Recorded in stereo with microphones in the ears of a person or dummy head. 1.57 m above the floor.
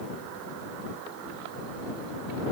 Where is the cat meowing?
No cat meowing in this recording.